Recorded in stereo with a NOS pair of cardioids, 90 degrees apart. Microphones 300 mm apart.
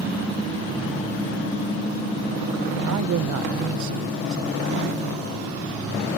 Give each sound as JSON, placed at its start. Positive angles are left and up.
{"t": 2.9, "sound": "a man speaking", "azimuth_deg": -70}